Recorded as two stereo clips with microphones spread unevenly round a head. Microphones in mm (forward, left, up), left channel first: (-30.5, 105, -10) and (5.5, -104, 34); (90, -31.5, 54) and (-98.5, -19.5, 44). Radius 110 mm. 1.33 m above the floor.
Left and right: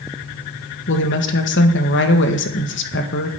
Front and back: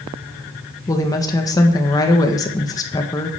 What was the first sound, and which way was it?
A woman speaking, 70° left.